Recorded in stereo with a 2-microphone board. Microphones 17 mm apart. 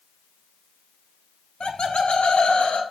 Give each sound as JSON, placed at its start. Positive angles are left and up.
{"t": 1.6, "sound": "laughter", "side_deg": 60, "distance_m": 1.3}